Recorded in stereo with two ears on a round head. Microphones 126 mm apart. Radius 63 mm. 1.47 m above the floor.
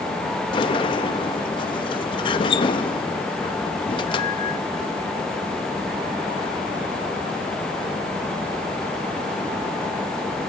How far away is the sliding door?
About 0.9 m.